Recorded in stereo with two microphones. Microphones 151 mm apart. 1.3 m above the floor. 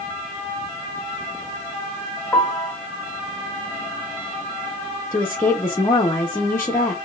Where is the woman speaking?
15° left (ahead or behind), 1.0 m.